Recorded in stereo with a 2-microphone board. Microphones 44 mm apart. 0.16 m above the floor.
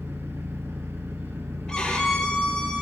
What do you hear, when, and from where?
0.0 s an engine running: 65° right (ahead or behind), 3 m
1.7 s a violin: 15° left (ahead or behind), 5 m